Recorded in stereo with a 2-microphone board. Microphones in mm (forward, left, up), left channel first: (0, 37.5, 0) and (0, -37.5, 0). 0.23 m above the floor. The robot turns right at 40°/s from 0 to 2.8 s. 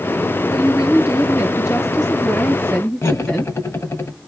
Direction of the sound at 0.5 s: 85° left.